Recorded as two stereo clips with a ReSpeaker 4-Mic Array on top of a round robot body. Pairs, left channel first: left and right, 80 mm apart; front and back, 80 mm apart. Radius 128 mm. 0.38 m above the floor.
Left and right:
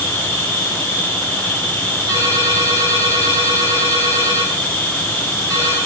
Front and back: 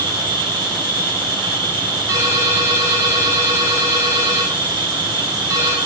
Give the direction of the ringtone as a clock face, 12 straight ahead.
4 o'clock.